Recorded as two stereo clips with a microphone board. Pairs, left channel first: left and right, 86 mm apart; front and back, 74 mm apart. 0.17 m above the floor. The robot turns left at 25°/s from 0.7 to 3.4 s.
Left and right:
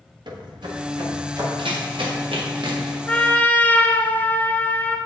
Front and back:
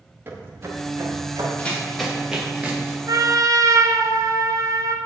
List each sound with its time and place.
0.3 s footsteps: 120° right, 2 m; by 1.5 s 145° right, 3.5 m
1.6 s running footsteps: 70° right, 2 m; by 3.0 s 120° right, 2.5 m
3.1 s a trumpet: 165° left, 0.8 m; by 5.0 s 155° left, 0.8 m